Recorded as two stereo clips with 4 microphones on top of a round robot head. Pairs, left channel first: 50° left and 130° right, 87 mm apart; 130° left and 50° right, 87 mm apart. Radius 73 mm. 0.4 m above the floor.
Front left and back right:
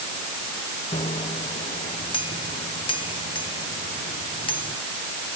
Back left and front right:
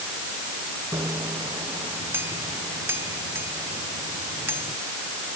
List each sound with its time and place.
0.9 s a bicycle bell: 20° left